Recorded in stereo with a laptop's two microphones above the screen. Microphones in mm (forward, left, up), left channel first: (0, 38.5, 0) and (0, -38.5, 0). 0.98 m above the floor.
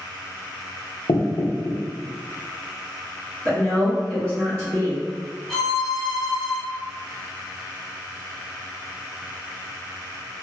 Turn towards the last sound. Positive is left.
turn(degrees=0)  # may be behind; listen again after turning